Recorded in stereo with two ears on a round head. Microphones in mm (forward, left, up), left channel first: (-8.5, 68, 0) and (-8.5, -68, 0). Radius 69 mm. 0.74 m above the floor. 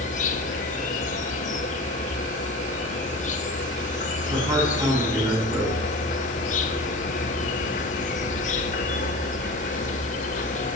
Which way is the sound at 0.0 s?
50° left (ahead or behind).